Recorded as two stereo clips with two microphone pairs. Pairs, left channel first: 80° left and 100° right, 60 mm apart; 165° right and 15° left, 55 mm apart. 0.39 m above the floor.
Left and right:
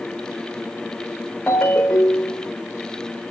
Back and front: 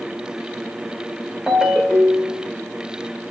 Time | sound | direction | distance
1.5 | a ringtone | 105° left | 0.8 m